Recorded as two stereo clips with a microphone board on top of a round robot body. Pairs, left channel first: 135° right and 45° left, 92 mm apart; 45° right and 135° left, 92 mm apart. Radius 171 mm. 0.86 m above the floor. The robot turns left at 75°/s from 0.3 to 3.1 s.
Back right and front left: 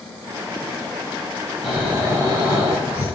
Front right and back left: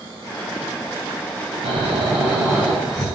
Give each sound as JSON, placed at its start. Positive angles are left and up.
{"t": 1.6, "sound": "snoring", "azimuth_deg": 145, "distance_m": 2.5}